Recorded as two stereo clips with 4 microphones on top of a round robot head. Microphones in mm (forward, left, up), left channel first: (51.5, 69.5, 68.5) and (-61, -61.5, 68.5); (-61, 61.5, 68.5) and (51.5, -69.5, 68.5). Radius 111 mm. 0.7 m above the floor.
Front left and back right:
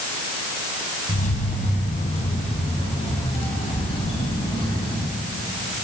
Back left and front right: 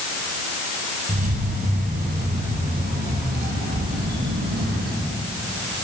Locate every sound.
1.1 s keys jangling: straight ahead, 4 m; by 5.1 s 15° right, 7 m